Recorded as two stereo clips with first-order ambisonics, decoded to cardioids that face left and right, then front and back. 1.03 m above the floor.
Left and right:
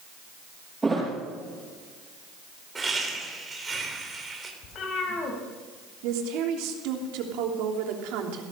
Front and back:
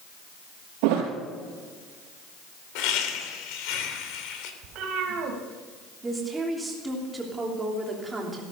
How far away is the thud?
About 5 m.